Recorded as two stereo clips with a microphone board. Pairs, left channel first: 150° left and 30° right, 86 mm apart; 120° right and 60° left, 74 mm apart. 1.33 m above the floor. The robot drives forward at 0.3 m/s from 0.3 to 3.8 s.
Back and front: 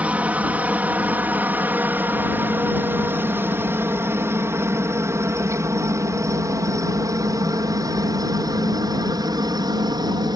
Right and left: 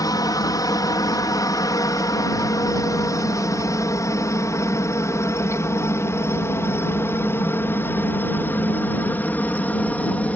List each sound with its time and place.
0.0 s a helicopter: 105° right; by 10.4 s 55° right